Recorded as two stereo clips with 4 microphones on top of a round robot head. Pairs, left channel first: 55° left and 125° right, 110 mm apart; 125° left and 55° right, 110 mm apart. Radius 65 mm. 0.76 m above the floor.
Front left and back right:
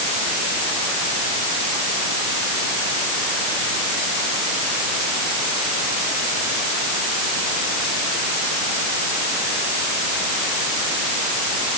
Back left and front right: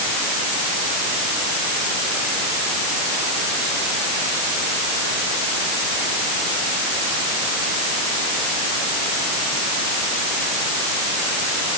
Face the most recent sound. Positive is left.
No sound to turn to.